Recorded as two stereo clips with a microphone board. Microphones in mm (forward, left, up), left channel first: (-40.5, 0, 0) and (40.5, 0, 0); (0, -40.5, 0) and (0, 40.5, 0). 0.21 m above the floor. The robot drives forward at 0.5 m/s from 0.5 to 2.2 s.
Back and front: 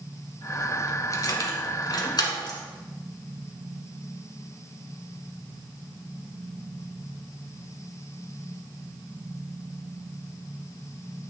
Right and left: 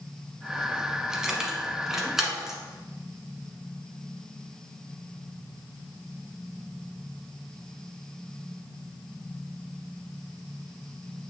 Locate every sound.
1.1 s keys jangling: 170° left, 0.9 m; by 2.6 s 175° left, 1.4 m